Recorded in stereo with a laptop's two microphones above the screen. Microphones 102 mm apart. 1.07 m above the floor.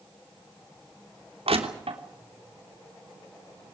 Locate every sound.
1.5 s crushing: 70° right (ahead or behind), 3 m